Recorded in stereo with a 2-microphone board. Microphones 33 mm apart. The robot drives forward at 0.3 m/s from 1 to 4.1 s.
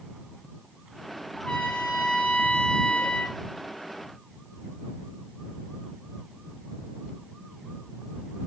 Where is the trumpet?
30° left (ahead or behind), 1.9 m; by 3.4 s 45° left (ahead or behind), 1.5 m.